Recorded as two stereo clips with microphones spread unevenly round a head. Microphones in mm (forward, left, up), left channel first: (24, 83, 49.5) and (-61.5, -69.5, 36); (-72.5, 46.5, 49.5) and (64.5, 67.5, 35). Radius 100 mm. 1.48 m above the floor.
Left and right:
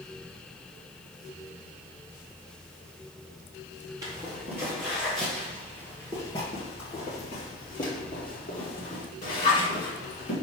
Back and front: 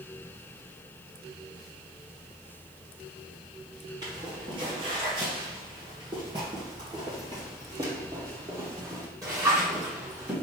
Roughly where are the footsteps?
Ahead right.